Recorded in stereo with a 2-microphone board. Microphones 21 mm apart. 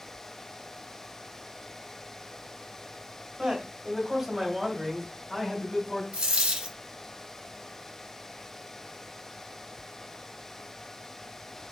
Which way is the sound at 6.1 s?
75° right (ahead or behind).